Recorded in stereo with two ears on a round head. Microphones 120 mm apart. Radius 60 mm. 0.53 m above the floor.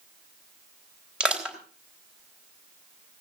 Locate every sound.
1.2 s crushing: 10° right (ahead or behind), 3.5 m